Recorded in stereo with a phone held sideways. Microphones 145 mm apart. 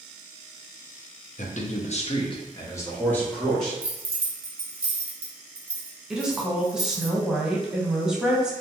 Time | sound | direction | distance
1.4 | a man speaking | 60° left (ahead or behind) | 0.6 m
3.8 | keys jangling | 40° right (ahead or behind) | 0.8 m
6.1 | a woman speaking | 5° right (ahead or behind) | 0.7 m